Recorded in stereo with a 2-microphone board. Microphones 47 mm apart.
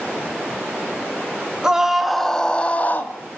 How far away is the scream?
About 2.5 m.